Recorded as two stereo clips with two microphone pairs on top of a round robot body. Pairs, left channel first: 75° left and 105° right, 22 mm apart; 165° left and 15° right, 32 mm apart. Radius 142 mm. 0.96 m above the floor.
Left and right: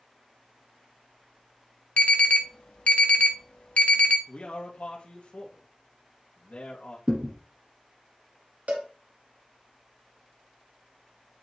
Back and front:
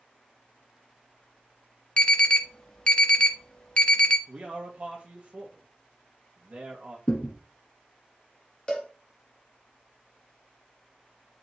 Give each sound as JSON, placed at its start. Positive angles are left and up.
{"t": 2.0, "sound": "an alarm", "azimuth_deg": 105, "distance_m": 0.8}
{"t": 4.3, "sound": "a man speaking", "azimuth_deg": 35, "distance_m": 1.7}
{"t": 7.1, "sound": "a thud", "azimuth_deg": -150, "distance_m": 1.1}
{"t": 8.7, "sound": "a cowbell", "azimuth_deg": -130, "distance_m": 1.6}